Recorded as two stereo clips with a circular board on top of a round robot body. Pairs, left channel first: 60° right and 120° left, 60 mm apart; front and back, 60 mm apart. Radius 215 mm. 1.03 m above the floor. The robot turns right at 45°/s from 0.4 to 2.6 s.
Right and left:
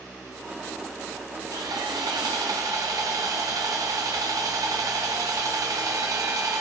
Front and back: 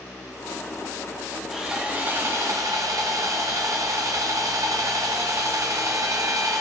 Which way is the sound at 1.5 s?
95° left.